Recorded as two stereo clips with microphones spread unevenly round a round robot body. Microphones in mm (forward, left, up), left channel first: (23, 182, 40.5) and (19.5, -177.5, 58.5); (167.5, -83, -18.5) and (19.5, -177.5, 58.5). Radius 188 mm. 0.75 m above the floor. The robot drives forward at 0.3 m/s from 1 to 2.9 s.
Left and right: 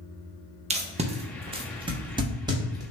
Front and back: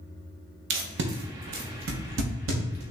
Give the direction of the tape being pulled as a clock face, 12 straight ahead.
5 o'clock.